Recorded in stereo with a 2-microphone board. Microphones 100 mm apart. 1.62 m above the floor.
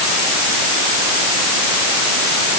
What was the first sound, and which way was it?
Only background noise.